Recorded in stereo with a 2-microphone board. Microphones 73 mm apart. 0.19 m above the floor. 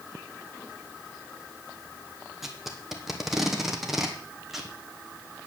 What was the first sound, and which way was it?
Tape being pulled, 5° right (ahead or behind).